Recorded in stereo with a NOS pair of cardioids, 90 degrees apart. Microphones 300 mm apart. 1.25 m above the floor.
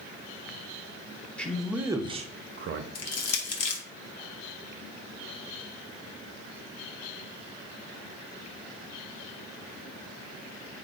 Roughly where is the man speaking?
Ahead.